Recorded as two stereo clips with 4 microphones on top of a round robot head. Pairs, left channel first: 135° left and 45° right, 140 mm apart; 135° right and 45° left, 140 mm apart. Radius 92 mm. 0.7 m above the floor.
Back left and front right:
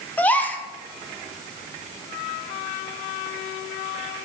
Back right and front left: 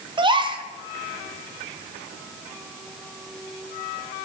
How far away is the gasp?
About 1.2 m.